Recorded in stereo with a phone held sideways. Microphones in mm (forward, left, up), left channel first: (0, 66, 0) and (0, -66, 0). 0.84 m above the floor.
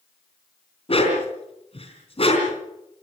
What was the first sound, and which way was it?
A dog barking, 45° left (ahead or behind).